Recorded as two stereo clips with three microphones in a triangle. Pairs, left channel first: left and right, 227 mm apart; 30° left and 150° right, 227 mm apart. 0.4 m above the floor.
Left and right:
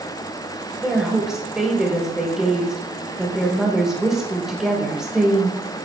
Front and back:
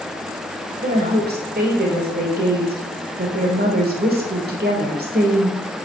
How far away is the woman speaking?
About 1.7 m.